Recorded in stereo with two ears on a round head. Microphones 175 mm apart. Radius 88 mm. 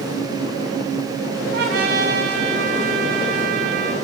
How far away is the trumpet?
About 4 m.